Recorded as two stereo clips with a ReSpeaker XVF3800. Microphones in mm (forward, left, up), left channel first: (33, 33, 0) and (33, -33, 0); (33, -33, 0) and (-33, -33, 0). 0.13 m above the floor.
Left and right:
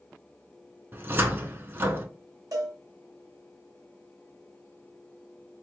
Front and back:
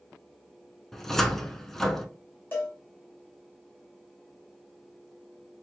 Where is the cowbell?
60° right, 1.4 m.